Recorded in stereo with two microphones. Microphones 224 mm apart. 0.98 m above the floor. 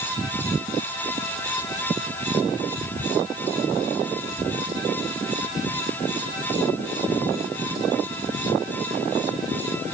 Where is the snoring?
No snoring in this recording.